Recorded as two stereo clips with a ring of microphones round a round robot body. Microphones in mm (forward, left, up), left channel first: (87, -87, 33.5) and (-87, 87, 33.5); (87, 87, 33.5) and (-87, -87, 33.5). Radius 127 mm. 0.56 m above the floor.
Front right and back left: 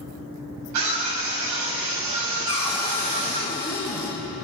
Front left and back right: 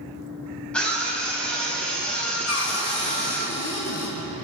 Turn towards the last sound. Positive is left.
turn(degrees=25)